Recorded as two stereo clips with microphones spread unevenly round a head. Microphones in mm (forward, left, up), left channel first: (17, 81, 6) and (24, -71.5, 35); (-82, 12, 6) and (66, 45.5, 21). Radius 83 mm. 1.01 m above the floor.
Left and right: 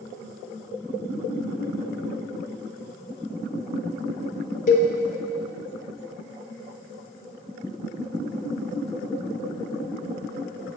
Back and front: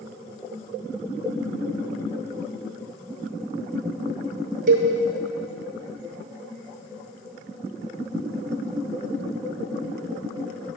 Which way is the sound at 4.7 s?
50° left.